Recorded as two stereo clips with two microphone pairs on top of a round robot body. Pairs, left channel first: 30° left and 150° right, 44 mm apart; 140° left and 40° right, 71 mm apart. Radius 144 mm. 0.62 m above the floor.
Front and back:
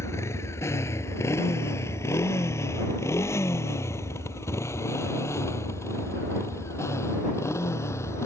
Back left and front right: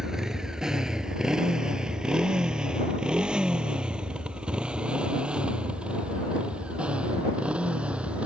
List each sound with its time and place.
0.0 s a motorcycle: 45° left; by 8.3 s 35° left